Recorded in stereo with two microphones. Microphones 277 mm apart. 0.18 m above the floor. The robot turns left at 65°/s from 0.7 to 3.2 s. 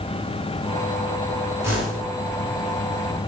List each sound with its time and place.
1.6 s a whoosh: 10° right (ahead or behind), 1.9 m; by 2.0 s 10° left (ahead or behind), 1.9 m